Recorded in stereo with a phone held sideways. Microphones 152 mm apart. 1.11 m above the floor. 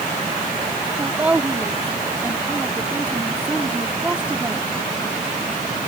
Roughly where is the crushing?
I don't hear crushing.